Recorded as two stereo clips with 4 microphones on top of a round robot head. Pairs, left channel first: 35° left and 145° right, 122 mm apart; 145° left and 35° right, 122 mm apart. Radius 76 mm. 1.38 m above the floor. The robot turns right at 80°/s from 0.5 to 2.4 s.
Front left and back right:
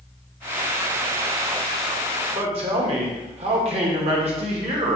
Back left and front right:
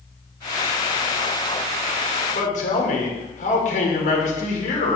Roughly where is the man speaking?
Behind.